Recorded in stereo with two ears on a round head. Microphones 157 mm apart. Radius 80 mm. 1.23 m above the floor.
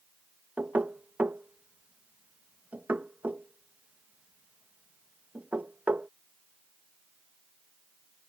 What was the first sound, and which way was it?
Knocking, 5° right (ahead or behind).